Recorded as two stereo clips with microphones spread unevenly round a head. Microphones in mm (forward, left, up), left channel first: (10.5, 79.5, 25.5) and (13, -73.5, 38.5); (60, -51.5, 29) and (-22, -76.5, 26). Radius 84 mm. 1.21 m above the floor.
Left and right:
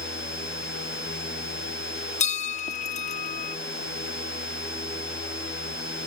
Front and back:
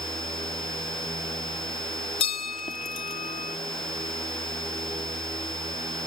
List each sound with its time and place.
2.2 s a bell: 45° left